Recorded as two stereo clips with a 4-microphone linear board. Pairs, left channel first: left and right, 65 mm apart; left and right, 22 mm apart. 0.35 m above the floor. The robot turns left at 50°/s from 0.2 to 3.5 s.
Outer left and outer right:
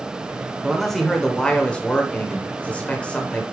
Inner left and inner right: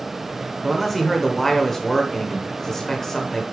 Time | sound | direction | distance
0.6 | a man speaking | centre (ahead or behind) | 1.2 m